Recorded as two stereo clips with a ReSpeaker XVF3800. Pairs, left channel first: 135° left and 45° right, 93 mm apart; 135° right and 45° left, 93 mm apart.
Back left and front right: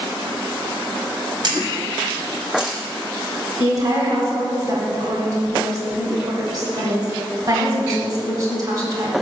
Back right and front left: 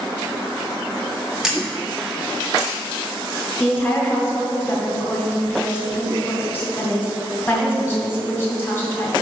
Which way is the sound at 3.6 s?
75° right.